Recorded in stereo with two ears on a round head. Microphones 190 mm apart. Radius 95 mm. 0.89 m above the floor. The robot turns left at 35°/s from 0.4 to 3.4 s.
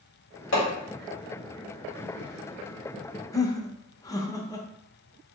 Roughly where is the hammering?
Left.